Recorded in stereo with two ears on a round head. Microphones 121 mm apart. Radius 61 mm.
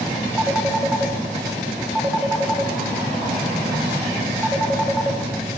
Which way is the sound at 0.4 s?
5° right (ahead or behind).